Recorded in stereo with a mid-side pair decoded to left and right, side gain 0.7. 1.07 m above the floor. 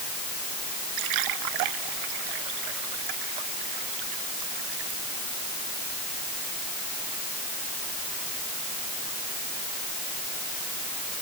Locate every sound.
1.0 s a splash: 70° right